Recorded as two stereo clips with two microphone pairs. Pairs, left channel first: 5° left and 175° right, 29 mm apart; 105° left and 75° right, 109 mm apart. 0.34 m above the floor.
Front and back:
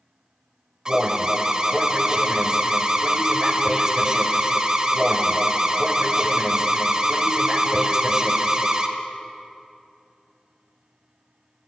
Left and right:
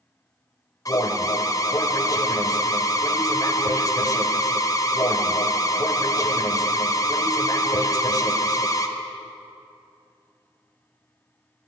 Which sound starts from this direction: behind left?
An alarm, at 0.8 s.